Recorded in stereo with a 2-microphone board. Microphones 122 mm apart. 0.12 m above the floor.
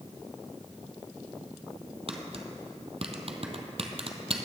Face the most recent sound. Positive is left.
turn(degrees=-55)  # may be behind; listen again after turning